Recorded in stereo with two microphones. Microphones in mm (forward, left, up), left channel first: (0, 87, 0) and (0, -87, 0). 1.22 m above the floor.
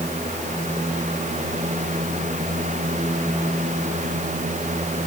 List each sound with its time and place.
Only background noise.